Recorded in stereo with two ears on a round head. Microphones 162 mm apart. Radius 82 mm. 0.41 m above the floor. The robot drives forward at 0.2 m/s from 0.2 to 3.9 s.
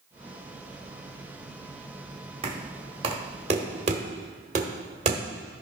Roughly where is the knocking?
Right.